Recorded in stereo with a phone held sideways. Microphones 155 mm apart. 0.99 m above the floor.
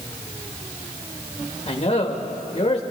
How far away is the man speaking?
About 1.4 m.